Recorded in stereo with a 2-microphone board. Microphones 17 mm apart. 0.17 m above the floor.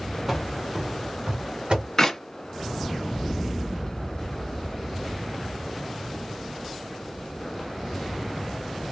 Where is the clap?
20° left (ahead or behind), 1.4 m.